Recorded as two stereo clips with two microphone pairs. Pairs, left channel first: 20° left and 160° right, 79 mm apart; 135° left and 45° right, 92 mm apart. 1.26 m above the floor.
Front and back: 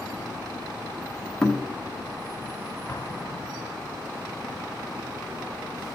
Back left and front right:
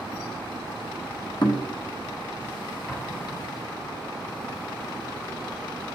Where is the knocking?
105° left, 1.2 m.